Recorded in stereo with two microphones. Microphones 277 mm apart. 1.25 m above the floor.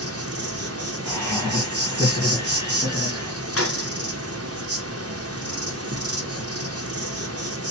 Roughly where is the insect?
Right.